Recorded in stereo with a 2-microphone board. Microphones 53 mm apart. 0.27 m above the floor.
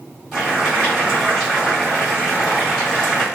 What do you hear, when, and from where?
0.3 s boiling: 5° left (ahead or behind), 1.9 m